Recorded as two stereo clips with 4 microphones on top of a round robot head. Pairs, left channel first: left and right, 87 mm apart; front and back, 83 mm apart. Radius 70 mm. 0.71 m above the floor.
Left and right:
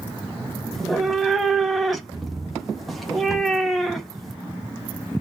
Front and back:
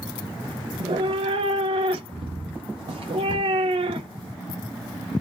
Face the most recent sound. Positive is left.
turn(degrees=180)